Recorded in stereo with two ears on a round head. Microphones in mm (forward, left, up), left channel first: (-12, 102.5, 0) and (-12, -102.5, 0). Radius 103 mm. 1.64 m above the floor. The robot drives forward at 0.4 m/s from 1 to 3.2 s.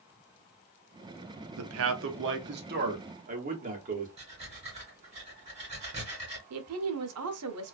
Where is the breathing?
30° right (ahead or behind), 1.5 m.